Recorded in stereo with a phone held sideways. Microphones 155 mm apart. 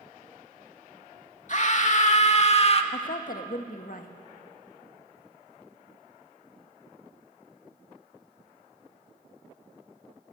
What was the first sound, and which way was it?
A scream, 55° left (ahead or behind).